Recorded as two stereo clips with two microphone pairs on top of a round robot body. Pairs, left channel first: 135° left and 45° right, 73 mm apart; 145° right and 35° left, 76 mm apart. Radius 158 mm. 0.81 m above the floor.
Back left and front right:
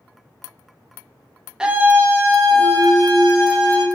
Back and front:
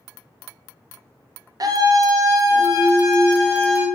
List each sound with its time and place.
1.6 s a scream: 40° left, 0.7 m; by 3.9 s 15° right, 1.6 m